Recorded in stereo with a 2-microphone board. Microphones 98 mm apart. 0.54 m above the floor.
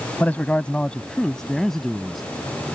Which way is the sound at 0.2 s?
15° left (ahead or behind).